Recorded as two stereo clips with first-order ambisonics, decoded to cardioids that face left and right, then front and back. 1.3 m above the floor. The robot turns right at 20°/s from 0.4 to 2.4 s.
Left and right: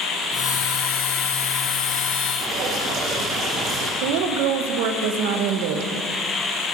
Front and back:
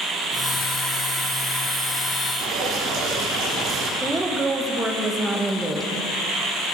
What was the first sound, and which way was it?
Dripping, 135° right.